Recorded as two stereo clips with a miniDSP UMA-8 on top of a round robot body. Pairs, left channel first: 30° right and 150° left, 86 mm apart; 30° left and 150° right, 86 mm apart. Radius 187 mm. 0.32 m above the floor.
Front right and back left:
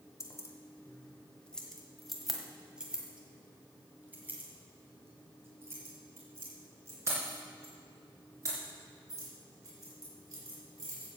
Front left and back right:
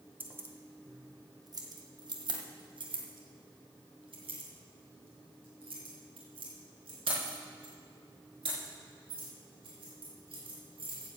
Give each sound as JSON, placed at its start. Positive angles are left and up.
{"t": 0.2, "sound": "keys jangling", "azimuth_deg": -80, "distance_m": 1.4}